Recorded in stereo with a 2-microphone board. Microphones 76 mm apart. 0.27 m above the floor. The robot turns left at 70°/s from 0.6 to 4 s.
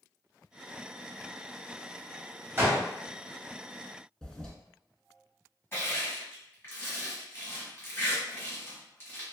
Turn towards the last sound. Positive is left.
turn(degrees=30)  # may be behind; listen again after turning